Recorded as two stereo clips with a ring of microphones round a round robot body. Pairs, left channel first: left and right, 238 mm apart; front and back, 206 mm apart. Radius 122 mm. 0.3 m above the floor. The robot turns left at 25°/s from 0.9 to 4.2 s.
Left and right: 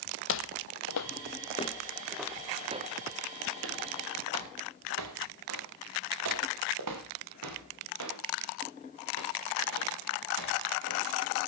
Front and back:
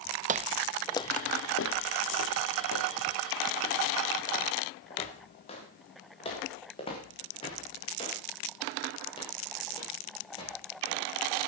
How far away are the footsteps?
About 0.6 m.